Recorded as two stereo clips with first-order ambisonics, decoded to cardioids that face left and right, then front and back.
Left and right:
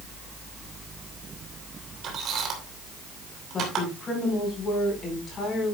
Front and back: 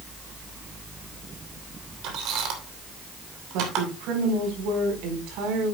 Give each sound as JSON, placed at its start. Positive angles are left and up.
{"t": 2.0, "sound": "a squeak", "azimuth_deg": -145, "distance_m": 3.0}
{"t": 3.5, "sound": "a woman speaking", "azimuth_deg": 160, "distance_m": 4.5}